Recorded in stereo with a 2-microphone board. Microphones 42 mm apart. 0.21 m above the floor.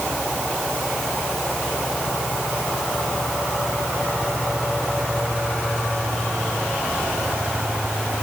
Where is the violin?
I don't hear a violin.